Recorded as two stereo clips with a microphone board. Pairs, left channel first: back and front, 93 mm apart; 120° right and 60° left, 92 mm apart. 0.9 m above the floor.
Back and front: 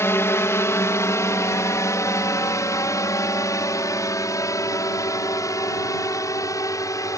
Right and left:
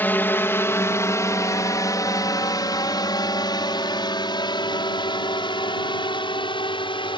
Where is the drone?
165° right; by 7.2 s 130° right.